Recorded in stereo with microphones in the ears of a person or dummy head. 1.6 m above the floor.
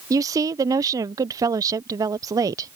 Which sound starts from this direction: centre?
A woman speaking, at 0.1 s.